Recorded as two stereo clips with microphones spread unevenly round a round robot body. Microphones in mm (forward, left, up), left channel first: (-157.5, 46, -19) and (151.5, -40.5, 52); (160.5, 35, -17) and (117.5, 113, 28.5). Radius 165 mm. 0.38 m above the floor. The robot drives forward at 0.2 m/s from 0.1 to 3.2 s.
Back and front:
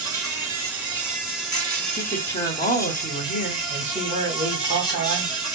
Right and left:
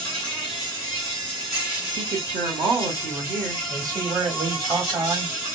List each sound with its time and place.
0.0 s an insect: 105° right, 1.4 m; by 5.6 s 135° right, 1.6 m
2.0 s a woman speaking: 125° left, 0.9 m; by 3.6 s 145° left, 1.0 m
3.7 s a man speaking: 60° left, 1.1 m